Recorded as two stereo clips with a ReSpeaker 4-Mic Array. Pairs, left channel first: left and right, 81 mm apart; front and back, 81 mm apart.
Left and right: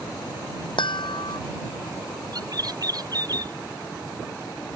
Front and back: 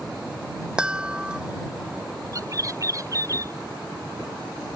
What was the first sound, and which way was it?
A chime, 100° left.